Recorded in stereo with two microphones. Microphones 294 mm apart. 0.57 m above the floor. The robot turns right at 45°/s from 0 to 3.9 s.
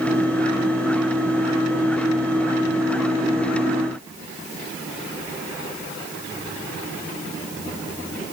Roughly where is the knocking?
No knocking in this recording.